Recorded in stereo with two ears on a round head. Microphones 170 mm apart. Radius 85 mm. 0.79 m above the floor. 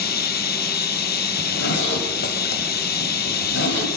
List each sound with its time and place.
0.0 s running water: 55° left (ahead or behind), 1.6 m
1.4 s a zipper: 65° left (ahead or behind), 6 m